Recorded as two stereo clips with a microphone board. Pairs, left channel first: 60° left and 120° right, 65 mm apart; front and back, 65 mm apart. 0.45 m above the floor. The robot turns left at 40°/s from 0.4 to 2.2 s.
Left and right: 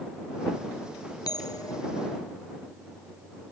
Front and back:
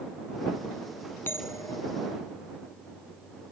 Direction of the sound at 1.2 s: 55° left.